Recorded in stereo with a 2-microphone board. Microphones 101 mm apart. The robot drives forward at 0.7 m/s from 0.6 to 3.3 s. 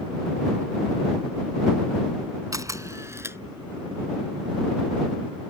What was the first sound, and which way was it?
A camera shutter, 35° right (ahead or behind).